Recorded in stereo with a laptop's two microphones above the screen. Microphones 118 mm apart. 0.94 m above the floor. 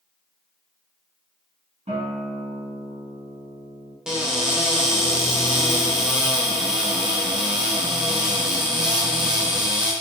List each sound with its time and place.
1.9 s a guitar: 65° right (ahead or behind), 1.6 m
4.1 s a cupboard door: 5° right (ahead or behind), 0.6 m